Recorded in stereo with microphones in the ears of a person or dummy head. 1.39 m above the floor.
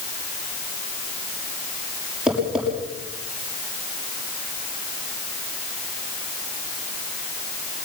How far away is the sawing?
I don't hear sawing.